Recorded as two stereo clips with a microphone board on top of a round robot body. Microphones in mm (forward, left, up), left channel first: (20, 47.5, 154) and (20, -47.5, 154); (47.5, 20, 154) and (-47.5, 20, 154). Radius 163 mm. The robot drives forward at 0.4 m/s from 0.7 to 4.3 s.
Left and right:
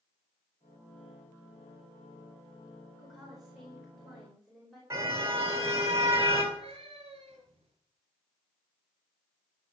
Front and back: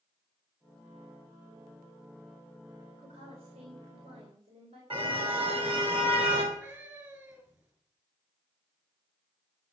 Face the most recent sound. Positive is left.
turn(degrees=-115)